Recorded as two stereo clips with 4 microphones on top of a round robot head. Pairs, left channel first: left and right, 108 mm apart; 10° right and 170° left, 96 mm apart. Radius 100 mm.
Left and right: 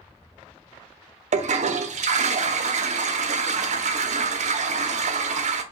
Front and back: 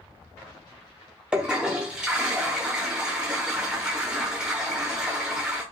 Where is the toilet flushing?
105° right, 0.6 m.